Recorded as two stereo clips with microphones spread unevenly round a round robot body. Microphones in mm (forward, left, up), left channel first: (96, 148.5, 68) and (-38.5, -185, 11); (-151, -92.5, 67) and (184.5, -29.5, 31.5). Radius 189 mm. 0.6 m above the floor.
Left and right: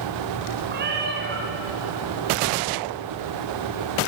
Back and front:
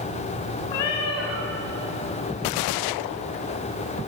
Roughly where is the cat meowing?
Behind.